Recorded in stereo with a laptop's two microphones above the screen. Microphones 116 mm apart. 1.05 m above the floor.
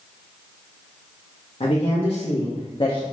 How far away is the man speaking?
About 0.9 m.